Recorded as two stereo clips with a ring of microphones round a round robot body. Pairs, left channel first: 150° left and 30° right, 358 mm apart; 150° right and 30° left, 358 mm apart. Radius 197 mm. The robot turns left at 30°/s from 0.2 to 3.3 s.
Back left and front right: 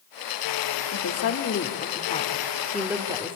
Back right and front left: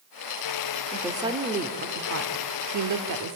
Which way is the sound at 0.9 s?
115° left.